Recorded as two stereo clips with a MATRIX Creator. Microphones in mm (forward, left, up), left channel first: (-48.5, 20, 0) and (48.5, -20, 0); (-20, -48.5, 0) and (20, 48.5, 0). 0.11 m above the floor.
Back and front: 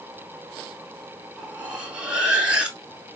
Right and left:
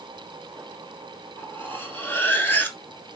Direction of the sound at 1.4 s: 80° right.